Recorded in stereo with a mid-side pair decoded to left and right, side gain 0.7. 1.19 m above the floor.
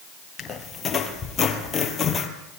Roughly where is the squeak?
Ahead left.